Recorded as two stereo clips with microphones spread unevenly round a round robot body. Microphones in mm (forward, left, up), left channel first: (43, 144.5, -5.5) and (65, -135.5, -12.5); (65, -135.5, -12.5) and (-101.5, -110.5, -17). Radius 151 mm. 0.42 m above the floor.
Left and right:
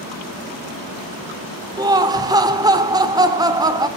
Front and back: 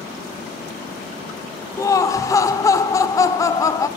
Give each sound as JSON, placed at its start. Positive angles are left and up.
{"t": 1.8, "sound": "laughter", "azimuth_deg": -40, "distance_m": 1.0}